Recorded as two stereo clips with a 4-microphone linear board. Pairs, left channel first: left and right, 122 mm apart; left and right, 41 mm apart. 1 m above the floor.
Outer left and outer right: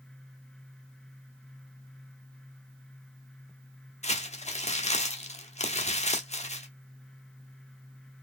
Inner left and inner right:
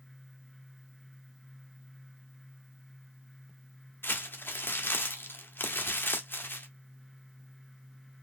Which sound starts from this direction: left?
Crumpling, at 4.0 s.